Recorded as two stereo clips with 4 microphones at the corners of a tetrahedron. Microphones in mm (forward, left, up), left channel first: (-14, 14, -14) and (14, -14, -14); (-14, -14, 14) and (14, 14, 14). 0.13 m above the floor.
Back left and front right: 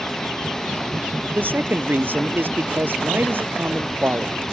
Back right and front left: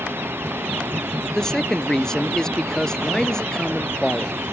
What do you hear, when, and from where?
0.0 s running water: 55° left
1.3 s a man speaking: 60° right